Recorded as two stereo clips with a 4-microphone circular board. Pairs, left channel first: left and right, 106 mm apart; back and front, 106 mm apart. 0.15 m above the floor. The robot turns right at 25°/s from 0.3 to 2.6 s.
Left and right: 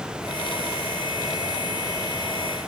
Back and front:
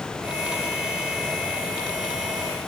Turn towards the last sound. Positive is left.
No sound to turn to.